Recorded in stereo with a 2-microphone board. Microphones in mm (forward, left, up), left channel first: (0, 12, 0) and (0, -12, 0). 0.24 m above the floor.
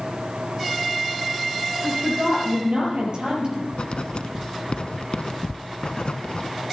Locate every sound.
1.8 s a woman speaking: 70° right (ahead or behind), 6 m; by 3.6 s 50° right (ahead or behind), 6 m
3.7 s writing: 60° left (ahead or behind), 0.9 m